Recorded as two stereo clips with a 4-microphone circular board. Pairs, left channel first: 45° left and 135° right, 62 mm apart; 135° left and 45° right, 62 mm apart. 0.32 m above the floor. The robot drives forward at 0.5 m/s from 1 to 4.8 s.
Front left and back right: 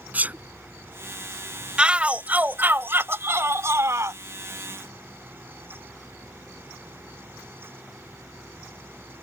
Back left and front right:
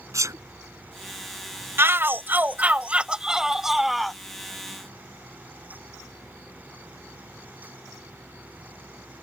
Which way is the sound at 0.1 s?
75° right.